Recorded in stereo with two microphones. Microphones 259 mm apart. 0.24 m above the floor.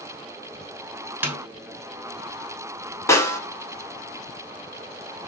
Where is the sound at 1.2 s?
10° right (ahead or behind), 0.6 m.